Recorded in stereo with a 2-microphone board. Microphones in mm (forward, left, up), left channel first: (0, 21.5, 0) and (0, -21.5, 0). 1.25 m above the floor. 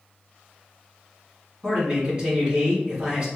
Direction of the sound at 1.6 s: 25° right (ahead or behind).